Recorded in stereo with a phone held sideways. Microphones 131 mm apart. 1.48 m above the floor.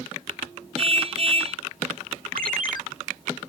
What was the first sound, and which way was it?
A car horn, 45° right (ahead or behind).